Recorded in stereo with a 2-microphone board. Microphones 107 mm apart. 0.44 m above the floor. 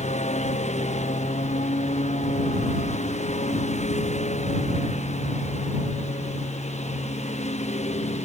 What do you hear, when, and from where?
0.0 s a lawn mower: 85° left; by 8.3 s 80° left